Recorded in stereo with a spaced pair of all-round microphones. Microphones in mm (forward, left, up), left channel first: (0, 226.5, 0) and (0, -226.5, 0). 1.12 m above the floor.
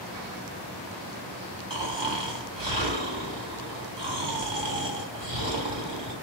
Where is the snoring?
65° right (ahead or behind), 1.9 m.